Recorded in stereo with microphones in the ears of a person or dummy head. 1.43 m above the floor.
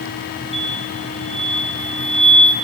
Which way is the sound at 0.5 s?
Centre (ahead or behind).